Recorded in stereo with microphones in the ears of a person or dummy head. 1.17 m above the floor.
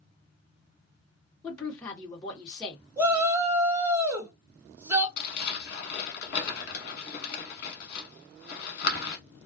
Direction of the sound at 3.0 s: 10° right (ahead or behind).